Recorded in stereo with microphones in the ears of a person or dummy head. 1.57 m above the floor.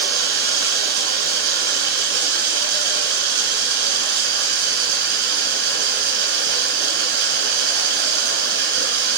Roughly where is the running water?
Right.